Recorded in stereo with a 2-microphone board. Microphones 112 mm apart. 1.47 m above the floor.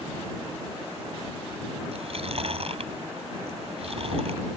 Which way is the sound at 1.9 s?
60° right (ahead or behind).